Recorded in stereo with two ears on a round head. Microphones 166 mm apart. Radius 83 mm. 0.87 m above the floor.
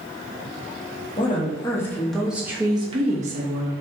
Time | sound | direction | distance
1.2 | a woman speaking | 30° left (ahead or behind) | 1.2 m